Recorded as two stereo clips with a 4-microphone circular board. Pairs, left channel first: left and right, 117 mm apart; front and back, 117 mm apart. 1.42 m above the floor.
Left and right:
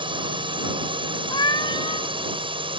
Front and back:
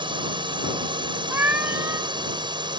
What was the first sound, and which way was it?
A drone, 135° right.